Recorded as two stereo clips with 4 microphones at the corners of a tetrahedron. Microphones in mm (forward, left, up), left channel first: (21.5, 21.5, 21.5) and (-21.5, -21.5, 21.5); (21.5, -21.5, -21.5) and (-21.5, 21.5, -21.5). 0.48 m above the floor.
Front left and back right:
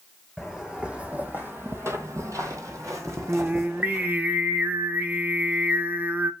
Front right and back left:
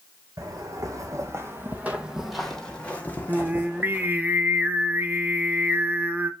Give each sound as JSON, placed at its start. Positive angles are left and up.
{"t": 0.4, "sound": "footsteps", "azimuth_deg": 145, "distance_m": 1.4}
{"t": 3.3, "sound": "singing", "azimuth_deg": 180, "distance_m": 0.5}